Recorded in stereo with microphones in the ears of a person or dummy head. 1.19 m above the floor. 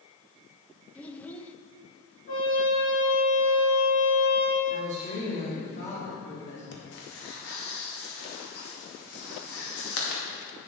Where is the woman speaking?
35° left (ahead or behind), 3 m.